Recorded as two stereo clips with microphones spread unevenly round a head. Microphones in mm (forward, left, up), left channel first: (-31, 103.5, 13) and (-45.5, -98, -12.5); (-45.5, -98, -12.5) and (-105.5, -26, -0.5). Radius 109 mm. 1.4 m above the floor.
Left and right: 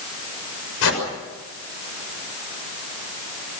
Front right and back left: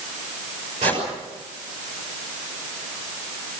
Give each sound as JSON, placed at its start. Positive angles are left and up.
{"t": 0.8, "sound": "a whoosh", "azimuth_deg": 85, "distance_m": 6.0}